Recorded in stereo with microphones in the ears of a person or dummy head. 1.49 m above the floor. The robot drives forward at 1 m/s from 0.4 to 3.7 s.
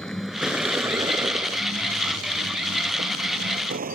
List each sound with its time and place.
0.0 s a vehicle: 5° left (ahead or behind); by 3.9 s 45° right (ahead or behind)